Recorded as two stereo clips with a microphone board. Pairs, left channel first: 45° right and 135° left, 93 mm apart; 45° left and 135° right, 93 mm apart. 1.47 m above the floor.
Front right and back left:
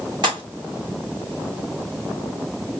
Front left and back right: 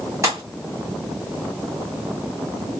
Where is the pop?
170° left, 2.5 m.